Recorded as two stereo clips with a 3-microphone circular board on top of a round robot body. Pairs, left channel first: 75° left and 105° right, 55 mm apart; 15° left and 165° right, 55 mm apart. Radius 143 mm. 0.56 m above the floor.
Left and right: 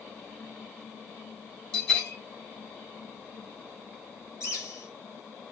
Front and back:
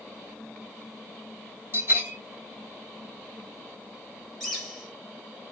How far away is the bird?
About 2.5 m.